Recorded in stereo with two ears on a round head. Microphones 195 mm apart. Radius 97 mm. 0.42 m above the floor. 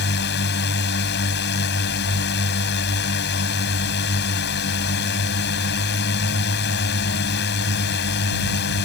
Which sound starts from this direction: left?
A drone, at 0.0 s.